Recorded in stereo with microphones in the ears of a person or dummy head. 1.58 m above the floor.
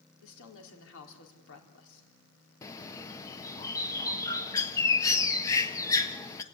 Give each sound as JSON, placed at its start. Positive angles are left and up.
{"t": 0.2, "sound": "a woman speaking", "side_deg": 70, "distance_m": 4.0}
{"t": 2.6, "sound": "a bird", "side_deg": 15, "distance_m": 1.2}